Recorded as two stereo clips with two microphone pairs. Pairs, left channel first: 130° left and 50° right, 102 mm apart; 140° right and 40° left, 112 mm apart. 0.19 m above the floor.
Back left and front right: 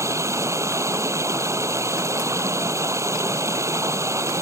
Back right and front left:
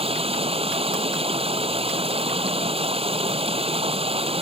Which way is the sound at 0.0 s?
15° left.